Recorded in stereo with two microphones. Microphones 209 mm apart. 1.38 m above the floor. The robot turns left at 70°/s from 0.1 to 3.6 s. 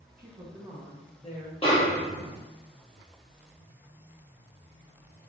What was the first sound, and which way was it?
A woman speaking, 135° right.